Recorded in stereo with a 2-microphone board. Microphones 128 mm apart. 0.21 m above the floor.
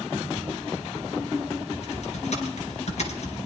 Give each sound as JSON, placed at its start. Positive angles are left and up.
{"t": 1.7, "sound": "typing on a keyboard", "side_deg": 60, "distance_m": 2.0}